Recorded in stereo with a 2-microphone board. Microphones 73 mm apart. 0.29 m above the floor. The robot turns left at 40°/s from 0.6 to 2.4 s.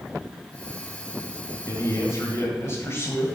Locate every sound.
1.7 s a man speaking: 40° left (ahead or behind), 1.5 m; by 3.4 s 35° left (ahead or behind), 1.5 m